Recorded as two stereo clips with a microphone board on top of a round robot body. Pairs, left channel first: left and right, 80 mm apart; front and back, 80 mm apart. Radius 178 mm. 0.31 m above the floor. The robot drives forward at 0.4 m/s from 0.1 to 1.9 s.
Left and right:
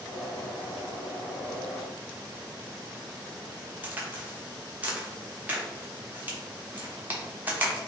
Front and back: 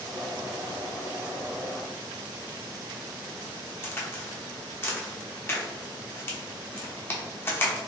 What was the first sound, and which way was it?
A crack, 35° right.